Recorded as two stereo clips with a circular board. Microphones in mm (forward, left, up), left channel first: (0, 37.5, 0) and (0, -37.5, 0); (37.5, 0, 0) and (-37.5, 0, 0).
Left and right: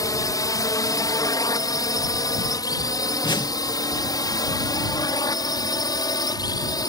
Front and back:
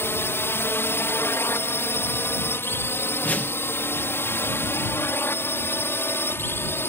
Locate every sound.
0.0 s a drone: 55° left; by 6.9 s 60° left
3.2 s a whoosh: 70° left